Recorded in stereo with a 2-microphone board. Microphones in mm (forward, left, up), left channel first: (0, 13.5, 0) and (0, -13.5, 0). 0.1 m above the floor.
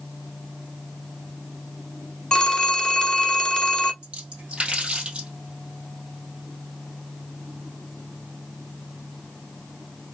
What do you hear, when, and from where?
2.3 s a phone ringing: 25° left (ahead or behind), 0.9 m
4.0 s a splash: 40° right (ahead or behind), 2 m